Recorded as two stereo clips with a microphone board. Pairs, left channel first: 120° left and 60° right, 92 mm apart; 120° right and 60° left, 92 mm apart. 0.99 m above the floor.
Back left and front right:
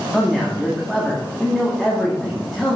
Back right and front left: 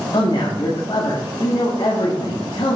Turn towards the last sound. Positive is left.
turn(degrees=-150)